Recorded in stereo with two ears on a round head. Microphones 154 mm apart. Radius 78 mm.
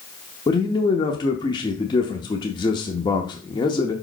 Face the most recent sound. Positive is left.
turn(degrees=25)  # may be behind; listen again after turning